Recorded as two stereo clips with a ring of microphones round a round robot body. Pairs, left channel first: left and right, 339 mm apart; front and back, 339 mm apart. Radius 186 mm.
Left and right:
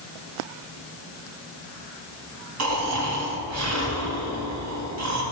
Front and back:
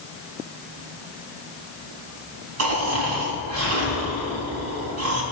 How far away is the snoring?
About 3 m.